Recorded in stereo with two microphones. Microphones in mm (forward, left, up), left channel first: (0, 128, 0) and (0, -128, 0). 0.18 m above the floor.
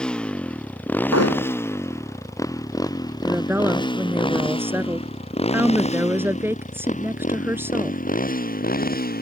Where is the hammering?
75° left (ahead or behind).